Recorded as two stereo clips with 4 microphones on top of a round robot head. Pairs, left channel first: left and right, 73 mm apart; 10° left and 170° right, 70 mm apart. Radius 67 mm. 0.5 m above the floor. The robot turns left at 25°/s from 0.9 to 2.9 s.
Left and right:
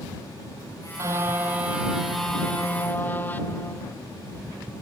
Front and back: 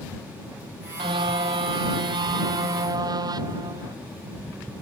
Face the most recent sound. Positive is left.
turn(degrees=160)